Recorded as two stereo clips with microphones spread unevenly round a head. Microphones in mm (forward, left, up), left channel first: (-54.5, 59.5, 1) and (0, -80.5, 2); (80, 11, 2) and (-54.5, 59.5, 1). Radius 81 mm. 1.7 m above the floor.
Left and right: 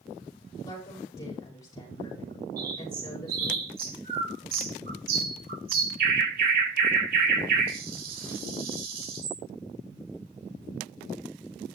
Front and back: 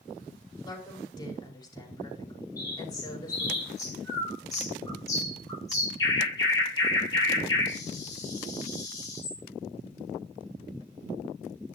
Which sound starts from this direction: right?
A bird, at 2.6 s.